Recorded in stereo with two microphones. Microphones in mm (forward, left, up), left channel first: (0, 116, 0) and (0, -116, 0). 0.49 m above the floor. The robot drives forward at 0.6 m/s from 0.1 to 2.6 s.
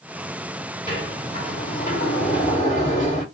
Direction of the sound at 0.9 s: 25° left (ahead or behind).